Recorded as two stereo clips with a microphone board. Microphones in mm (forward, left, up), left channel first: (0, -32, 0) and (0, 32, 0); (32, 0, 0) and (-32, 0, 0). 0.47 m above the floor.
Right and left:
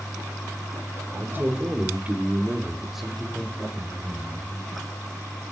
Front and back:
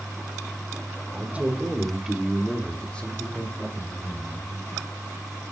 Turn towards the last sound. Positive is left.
turn(degrees=-25)